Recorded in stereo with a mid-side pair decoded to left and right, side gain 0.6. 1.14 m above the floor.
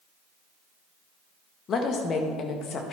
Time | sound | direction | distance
1.7 | a woman speaking | 50° left | 1.4 m